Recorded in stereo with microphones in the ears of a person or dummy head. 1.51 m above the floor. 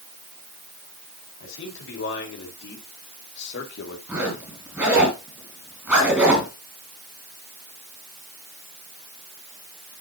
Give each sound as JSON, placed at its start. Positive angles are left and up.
{"t": 1.4, "sound": "a man speaking", "side_deg": 75, "distance_m": 5.0}
{"t": 4.1, "sound": "a zipper", "side_deg": -15, "distance_m": 4.5}